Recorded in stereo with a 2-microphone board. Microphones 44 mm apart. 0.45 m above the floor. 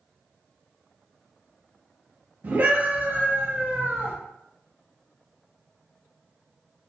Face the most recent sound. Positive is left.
turn(degrees=-60)  # may be behind; listen again after turning